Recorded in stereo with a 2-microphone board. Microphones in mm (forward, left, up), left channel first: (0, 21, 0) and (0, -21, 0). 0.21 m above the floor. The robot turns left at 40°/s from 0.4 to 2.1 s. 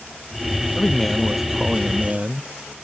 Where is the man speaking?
15° left; by 2.8 s 35° right.